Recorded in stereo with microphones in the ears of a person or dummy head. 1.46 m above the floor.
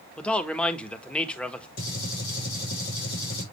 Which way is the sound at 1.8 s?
50° left (ahead or behind).